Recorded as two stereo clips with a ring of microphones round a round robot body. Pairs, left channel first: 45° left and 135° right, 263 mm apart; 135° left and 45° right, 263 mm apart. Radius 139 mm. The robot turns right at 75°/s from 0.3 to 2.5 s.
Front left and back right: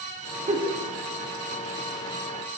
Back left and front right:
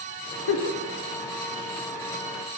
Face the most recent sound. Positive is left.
turn(degrees=-50)